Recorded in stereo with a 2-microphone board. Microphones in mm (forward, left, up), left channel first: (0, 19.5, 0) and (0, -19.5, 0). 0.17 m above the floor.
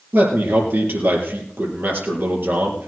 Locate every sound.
0.1 s a man speaking: 65° right (ahead or behind), 4 m